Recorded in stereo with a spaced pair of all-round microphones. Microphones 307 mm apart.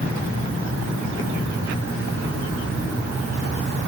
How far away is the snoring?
I don't hear snoring.